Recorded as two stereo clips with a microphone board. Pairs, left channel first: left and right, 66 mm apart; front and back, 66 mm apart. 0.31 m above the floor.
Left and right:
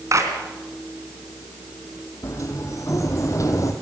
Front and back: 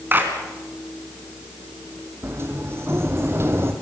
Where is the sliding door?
125° left, 2 m.